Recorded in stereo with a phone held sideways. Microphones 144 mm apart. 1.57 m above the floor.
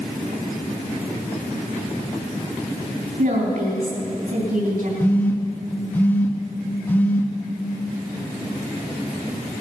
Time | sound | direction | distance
3.2 | a woman speaking | 85° right | 3.5 m
5.0 | a phone buzzing | 10° left (ahead or behind) | 1.1 m